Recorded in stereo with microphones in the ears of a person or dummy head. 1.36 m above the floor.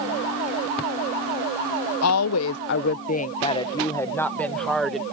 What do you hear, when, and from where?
2.0 s a woman speaking: 85° left; by 5.0 s centre (ahead or behind)